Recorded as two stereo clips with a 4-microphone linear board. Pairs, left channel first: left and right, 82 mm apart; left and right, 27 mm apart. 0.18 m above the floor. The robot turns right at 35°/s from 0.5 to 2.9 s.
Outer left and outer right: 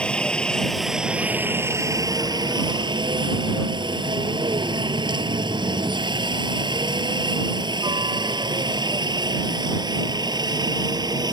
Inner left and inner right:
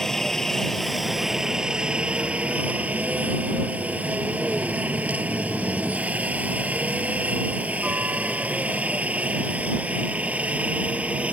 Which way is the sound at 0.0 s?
15° left (ahead or behind).